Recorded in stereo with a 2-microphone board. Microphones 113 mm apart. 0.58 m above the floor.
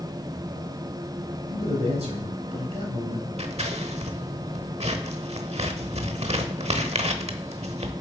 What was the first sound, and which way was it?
A man speaking, 70° right (ahead or behind).